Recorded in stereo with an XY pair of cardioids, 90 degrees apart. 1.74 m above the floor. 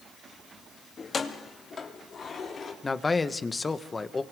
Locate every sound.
1.0 s keys jangling: 50° left, 2.5 m; by 2.7 s 55° left, 4.5 m
2.8 s a man speaking: 30° left, 1.6 m